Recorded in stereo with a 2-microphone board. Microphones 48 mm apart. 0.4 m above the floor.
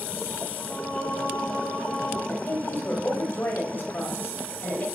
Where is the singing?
35° left (ahead or behind), 3 m.